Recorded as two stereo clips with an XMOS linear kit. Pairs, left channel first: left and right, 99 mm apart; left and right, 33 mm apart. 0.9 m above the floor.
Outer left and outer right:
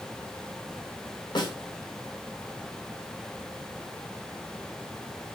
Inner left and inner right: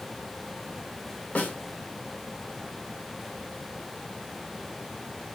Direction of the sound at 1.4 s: 50° left (ahead or behind).